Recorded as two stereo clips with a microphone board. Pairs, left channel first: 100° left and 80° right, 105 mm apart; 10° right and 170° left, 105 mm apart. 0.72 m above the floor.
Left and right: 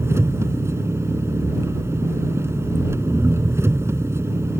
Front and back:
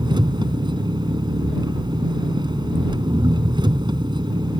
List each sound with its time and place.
0.0 s an engine running: 145° right